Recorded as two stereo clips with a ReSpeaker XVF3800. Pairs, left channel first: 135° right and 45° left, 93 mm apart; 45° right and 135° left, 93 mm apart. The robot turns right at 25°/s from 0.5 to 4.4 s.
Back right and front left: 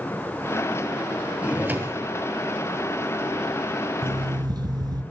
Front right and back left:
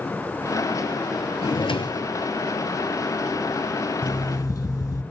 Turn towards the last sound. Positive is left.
turn(degrees=5)